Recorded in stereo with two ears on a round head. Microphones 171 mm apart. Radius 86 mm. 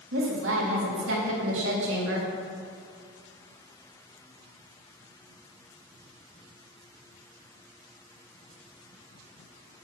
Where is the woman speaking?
70° right (ahead or behind), 2.5 m.